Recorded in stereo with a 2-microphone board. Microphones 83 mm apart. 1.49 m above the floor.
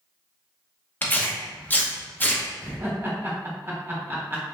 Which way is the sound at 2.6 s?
30° right (ahead or behind).